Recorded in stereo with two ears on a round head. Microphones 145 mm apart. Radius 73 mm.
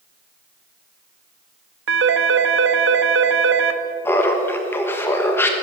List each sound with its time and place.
1.9 s a phone ringing: 80° right, 1.0 m
4.0 s laughter: 15° left (ahead or behind), 1.1 m